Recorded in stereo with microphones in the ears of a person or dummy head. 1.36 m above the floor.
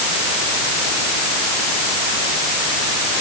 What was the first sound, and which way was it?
Only background noise.